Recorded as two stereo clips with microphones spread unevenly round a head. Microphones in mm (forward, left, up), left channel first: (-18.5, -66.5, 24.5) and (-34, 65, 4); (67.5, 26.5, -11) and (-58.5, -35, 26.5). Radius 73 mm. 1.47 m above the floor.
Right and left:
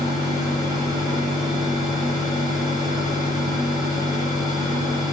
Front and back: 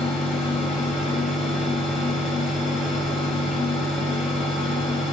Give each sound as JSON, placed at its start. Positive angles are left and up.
{"t": 0.0, "sound": "a fan", "azimuth_deg": 145, "distance_m": 1.1}